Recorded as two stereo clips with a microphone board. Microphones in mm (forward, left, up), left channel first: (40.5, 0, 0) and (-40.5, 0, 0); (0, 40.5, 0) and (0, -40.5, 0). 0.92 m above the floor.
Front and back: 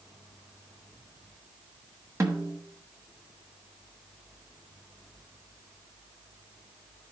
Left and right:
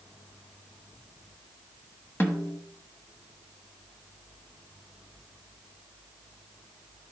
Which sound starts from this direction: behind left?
A snare drum, at 2.2 s.